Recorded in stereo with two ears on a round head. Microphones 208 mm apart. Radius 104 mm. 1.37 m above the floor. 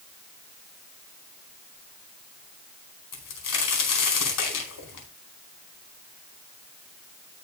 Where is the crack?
75° left (ahead or behind), 4.5 m.